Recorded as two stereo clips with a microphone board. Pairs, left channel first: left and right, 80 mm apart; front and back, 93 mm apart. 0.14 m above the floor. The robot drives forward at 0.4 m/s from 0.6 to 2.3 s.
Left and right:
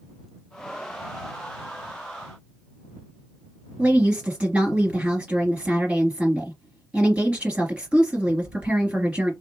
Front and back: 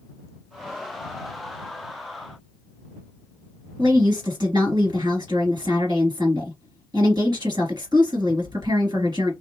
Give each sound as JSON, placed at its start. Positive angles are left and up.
{"t": 3.8, "sound": "a woman speaking", "azimuth_deg": -160, "distance_m": 2.5}